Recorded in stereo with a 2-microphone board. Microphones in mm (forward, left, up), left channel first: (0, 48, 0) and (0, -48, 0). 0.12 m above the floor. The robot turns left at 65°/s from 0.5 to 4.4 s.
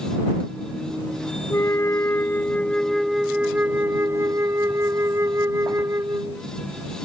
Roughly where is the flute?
Left.